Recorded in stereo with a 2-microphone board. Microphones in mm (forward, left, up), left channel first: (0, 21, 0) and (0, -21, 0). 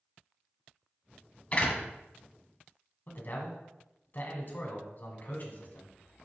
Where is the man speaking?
45° left (ahead or behind), 1.9 m.